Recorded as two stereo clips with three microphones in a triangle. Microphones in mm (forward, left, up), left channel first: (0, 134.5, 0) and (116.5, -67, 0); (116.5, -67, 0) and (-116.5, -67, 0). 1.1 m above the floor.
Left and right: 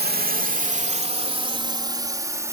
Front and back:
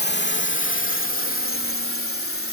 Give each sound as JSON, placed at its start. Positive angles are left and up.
{"t": 0.0, "sound": "a drone", "azimuth_deg": -25}